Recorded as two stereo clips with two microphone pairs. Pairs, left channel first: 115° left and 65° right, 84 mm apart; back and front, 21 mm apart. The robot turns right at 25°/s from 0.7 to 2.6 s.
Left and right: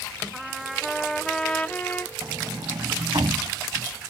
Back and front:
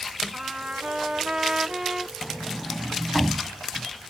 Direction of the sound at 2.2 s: 105° right.